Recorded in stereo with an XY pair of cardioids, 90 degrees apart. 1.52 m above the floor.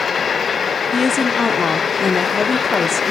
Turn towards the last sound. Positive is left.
turn(degrees=40)